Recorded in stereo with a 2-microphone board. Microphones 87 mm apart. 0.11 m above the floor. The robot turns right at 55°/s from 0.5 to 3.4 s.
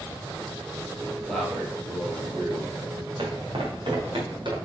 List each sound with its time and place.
1.3 s a man speaking: 170° left, 3 m; by 2.8 s 105° right, 3 m
3.2 s footsteps: 65° right (ahead or behind), 2.5 m; by 4.5 s 60° right (ahead or behind), 3 m